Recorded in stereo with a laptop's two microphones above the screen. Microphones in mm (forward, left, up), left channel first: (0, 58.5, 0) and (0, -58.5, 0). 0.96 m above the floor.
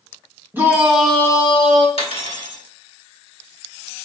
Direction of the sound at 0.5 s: 20° right (ahead or behind).